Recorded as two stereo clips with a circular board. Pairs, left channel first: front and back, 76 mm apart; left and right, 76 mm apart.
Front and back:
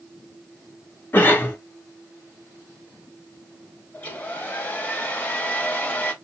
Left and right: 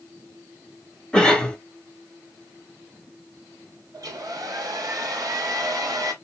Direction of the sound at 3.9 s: 65° right.